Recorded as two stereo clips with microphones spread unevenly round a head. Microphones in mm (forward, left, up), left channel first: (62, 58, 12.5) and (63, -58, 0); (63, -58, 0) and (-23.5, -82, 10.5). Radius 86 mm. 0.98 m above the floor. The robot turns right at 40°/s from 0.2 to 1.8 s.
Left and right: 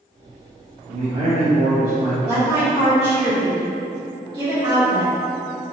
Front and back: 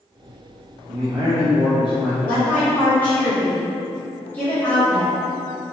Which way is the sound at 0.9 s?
115° right.